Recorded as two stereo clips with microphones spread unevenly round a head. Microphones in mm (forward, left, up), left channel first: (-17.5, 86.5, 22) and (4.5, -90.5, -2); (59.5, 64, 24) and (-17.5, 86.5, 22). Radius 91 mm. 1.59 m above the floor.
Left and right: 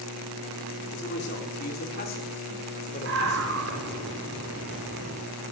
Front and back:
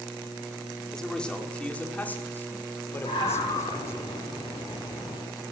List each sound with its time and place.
0.9 s a man speaking: 65° left, 5 m; by 4.0 s 35° left, 6.5 m
3.0 s a scream: 60° right, 6 m